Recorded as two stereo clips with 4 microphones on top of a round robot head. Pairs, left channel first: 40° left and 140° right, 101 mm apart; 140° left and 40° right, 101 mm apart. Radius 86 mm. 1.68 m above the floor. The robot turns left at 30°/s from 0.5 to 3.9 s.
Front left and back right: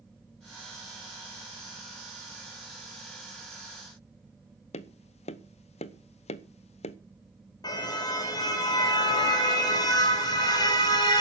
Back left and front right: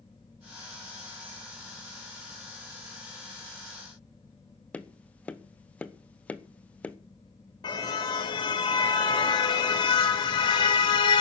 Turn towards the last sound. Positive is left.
turn(degrees=90)